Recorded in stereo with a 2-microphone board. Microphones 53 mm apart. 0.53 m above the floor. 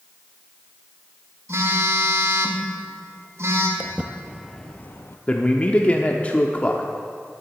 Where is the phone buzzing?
60° right (ahead or behind), 1.7 m.